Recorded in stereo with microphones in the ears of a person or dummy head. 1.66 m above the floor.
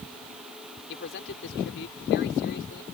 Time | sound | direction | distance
0.9 | a man speaking | 70° left (ahead or behind) | ?